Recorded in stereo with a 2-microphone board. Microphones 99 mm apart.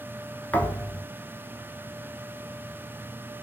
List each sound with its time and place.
0.5 s a thud: 15° left (ahead or behind), 0.6 m